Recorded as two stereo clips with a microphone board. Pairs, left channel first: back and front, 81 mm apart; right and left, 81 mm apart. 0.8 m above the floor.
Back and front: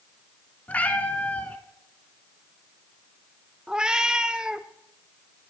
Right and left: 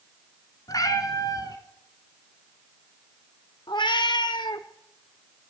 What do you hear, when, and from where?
0.7 s a cat meowing: 115° right, 1.1 m
3.7 s a cat meowing: 80° right, 0.7 m